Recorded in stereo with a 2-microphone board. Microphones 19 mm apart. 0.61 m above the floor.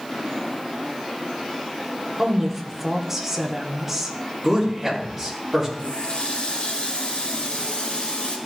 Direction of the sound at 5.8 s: 75° left (ahead or behind).